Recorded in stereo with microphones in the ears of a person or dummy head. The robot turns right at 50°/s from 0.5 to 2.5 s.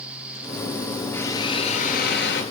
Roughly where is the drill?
Ahead.